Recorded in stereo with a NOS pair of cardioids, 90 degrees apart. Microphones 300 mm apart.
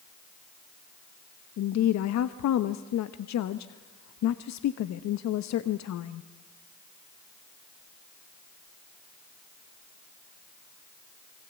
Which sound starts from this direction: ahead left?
A woman speaking, at 1.6 s.